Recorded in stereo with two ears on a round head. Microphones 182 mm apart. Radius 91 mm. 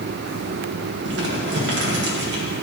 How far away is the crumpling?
About 1.7 m.